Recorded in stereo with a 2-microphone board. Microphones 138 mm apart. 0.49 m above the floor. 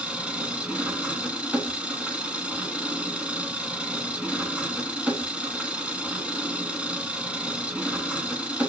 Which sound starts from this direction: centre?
An engine running, at 0.0 s.